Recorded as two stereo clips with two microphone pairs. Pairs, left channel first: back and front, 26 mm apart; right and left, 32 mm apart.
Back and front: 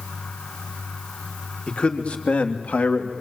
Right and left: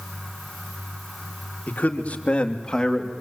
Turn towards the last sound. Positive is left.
turn(degrees=-175)